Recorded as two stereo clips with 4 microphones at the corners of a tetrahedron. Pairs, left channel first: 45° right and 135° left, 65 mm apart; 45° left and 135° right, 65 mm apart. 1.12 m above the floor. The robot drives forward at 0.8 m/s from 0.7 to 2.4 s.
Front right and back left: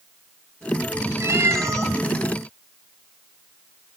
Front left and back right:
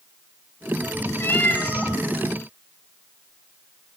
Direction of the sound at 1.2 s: 95° left.